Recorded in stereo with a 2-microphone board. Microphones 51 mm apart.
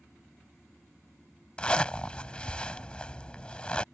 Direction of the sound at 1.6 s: 20° left (ahead or behind).